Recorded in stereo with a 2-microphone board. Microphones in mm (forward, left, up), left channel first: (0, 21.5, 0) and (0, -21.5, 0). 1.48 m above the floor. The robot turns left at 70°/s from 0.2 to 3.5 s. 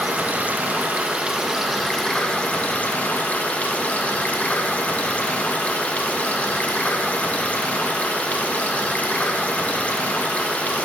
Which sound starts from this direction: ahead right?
Running water, at 0.0 s.